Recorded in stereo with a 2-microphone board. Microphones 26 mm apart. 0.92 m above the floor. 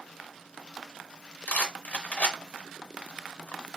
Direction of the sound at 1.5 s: 70° left (ahead or behind).